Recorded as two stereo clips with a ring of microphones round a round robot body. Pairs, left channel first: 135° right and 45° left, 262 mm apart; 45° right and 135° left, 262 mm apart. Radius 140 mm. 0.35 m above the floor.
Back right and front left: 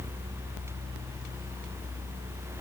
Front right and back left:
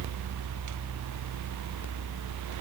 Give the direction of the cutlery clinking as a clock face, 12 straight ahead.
No cutlery clinking in this recording.